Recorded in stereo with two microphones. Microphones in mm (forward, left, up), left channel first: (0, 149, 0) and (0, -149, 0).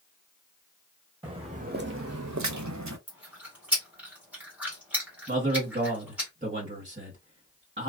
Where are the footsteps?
15° right (ahead or behind), 0.9 m; by 3.0 s 65° right (ahead or behind), 0.8 m.